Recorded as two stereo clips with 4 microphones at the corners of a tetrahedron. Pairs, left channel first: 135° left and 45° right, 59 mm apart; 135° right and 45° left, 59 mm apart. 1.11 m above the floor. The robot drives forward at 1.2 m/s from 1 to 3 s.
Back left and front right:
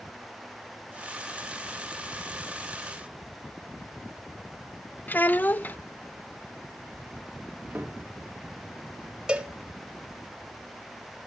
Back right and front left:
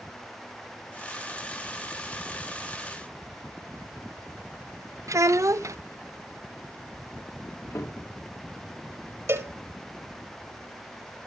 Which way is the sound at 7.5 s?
105° right.